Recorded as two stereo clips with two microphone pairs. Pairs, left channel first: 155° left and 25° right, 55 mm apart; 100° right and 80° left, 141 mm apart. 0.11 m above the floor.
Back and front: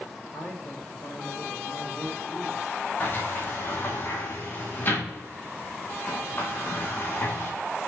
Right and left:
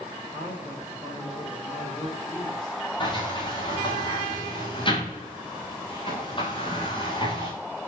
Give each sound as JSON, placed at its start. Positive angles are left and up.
{"t": 0.3, "sound": "a man speaking", "azimuth_deg": -160, "distance_m": 7.5}
{"t": 3.0, "sound": "a sliding door", "azimuth_deg": -155, "distance_m": 4.0}